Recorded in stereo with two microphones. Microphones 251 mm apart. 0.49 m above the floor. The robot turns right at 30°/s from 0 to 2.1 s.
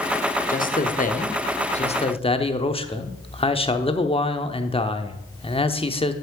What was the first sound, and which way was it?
A man speaking, 90° left.